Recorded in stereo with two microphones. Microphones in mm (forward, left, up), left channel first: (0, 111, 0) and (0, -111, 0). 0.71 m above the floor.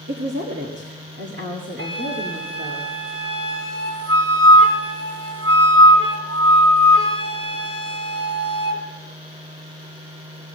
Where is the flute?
75° right (ahead or behind), 2 m.